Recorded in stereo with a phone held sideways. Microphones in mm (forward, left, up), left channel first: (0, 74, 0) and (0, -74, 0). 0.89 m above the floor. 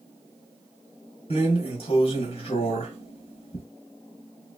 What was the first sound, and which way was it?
A drawer, 40° left (ahead or behind).